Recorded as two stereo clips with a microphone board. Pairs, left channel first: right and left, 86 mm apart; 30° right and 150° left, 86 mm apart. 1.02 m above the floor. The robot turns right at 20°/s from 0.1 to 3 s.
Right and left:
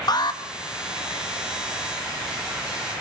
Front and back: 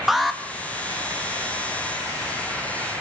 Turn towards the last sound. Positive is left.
turn(degrees=-65)